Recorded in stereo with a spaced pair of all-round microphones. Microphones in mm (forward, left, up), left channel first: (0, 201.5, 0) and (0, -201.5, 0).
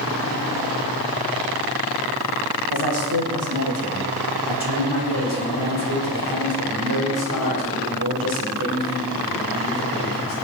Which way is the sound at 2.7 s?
65° right (ahead or behind).